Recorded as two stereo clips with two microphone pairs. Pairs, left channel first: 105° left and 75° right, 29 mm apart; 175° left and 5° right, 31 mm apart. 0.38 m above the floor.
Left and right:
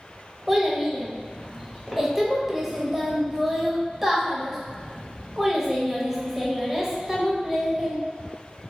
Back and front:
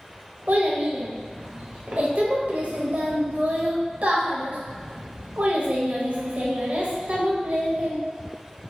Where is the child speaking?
Straight ahead, 0.7 m.